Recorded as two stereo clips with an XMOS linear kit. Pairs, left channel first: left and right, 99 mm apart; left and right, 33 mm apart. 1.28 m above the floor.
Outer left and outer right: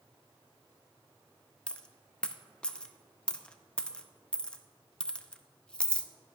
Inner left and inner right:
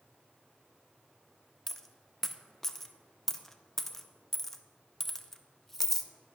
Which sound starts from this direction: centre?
A dropped coin, at 1.7 s.